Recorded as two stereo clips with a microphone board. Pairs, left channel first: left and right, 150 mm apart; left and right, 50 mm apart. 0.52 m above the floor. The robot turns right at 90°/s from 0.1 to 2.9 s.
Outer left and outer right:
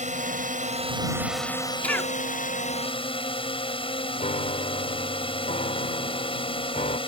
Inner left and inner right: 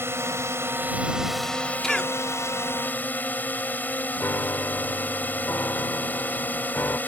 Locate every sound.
0.0 s a drone: 115° right; by 7.1 s 140° left
1.8 s a cough: 10° left (ahead or behind); by 2.1 s 20° left (ahead or behind)
4.2 s a piano: 55° left (ahead or behind)